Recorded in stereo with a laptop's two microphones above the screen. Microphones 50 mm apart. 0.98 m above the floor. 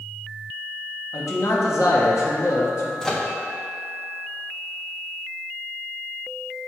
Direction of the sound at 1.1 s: 75° left (ahead or behind).